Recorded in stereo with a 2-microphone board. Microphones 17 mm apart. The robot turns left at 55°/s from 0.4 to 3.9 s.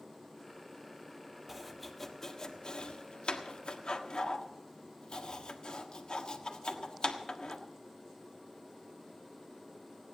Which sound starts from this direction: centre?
Chopping, at 1.5 s.